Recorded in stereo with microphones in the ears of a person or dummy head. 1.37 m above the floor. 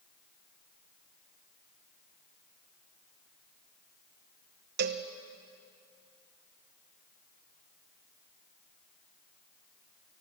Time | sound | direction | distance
4.8 | a cowbell | 55° right (ahead or behind) | 1.2 m